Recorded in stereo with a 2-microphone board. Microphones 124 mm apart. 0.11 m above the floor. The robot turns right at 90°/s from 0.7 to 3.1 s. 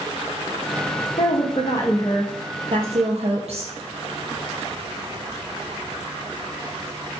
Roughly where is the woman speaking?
Left.